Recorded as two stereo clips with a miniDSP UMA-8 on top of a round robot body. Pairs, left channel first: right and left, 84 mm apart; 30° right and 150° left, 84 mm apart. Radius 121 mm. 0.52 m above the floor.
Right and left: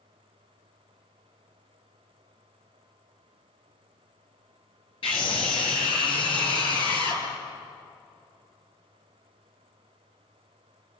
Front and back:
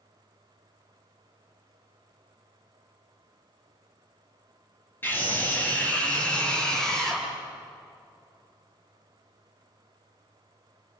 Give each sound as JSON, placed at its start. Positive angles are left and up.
{"t": 5.0, "sound": "a scream", "azimuth_deg": -100, "distance_m": 8.5}